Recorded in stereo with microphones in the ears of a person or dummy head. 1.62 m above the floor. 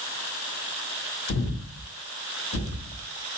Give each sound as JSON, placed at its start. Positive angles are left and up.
{"t": 1.3, "sound": "breathing", "side_deg": 80, "distance_m": 1.6}